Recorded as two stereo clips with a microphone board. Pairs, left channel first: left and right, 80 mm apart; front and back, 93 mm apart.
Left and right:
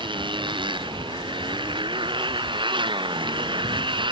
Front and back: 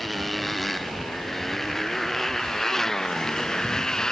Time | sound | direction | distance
0.0 | a motorcycle | 90° right | ?